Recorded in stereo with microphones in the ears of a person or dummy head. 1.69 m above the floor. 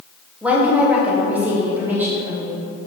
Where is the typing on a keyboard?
I don't hear typing on a keyboard.